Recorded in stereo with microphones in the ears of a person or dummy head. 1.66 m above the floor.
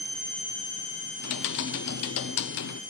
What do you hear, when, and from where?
1.2 s typing on a keyboard: 65° left (ahead or behind), 0.6 m